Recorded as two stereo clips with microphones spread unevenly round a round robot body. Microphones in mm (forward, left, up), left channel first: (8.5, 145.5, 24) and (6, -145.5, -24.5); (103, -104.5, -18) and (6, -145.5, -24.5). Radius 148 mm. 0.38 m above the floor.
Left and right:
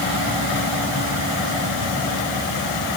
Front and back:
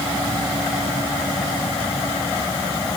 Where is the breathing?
I don't hear breathing.